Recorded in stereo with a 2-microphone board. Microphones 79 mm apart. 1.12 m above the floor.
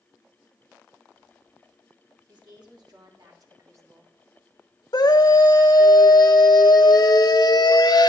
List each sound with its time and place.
2.3 s a woman speaking: 65° right (ahead or behind), 3.5 m; by 4.1 s 30° right (ahead or behind), 2 m
4.9 s a scream: 60° left (ahead or behind), 1.3 m